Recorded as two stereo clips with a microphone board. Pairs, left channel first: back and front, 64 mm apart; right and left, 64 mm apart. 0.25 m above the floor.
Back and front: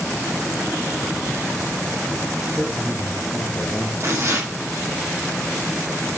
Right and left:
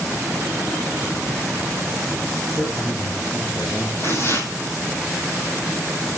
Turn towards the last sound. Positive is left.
turn(degrees=-45)